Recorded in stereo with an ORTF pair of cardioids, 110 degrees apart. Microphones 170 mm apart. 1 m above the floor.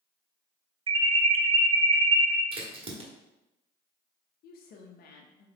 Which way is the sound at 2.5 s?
35° right.